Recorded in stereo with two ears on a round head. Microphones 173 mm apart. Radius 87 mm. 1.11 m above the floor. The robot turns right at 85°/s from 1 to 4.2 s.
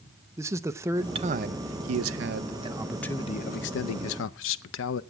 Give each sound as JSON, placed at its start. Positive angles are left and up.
{"t": 0.4, "sound": "a man speaking", "azimuth_deg": -165, "distance_m": 0.5}